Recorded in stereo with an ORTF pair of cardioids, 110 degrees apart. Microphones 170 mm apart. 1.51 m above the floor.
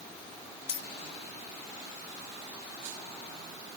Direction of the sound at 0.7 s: 40° left.